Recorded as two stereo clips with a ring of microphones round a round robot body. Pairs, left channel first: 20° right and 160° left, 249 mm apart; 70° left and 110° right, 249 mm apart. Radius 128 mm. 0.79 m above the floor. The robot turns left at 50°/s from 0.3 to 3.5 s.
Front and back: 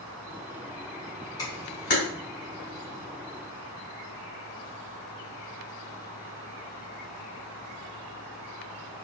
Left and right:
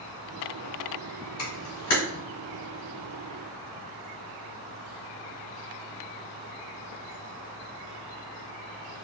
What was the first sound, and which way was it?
A camera shutter, 55° left.